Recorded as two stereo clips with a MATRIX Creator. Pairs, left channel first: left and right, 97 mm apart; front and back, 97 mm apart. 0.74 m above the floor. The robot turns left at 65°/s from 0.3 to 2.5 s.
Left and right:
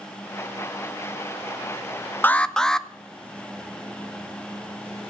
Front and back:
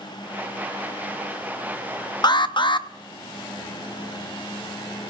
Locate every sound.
2.2 s an alarm: 25° left, 0.5 m; by 2.9 s 10° left, 0.5 m